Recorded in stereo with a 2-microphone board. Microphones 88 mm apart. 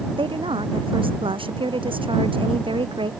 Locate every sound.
0.1 s a woman speaking: 75° right (ahead or behind)